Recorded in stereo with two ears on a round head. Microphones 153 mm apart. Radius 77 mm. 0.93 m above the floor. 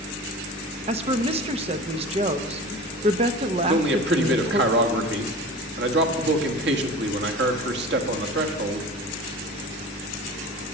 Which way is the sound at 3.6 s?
70° right (ahead or behind).